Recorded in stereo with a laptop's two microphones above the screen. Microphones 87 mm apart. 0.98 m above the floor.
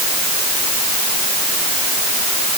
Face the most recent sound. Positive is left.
No sound to turn to.